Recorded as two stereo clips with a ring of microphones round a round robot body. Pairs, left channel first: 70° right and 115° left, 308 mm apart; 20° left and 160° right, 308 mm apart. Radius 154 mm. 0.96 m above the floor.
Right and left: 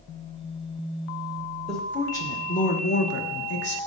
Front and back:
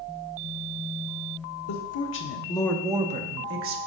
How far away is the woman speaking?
About 1.1 m.